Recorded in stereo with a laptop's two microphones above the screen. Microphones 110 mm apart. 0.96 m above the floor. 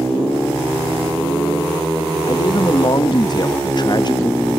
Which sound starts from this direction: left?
A man speaking, at 2.3 s.